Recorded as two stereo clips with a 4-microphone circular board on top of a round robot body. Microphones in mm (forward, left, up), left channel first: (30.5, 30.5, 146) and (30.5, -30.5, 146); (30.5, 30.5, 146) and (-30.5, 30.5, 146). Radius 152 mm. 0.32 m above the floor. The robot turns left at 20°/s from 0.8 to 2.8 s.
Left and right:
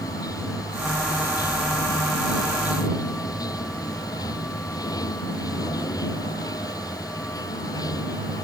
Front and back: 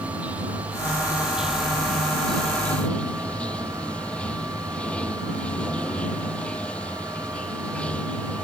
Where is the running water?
110° left; by 8.4 s 70° left.